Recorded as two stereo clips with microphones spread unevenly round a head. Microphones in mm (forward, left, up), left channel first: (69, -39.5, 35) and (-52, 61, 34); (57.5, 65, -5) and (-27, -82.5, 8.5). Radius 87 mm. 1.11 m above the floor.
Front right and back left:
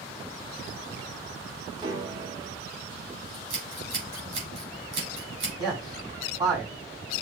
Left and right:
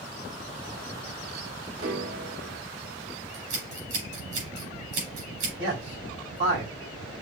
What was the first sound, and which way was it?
A piano, 155° right.